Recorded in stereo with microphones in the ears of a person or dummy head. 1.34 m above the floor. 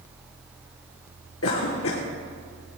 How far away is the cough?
About 1.3 m.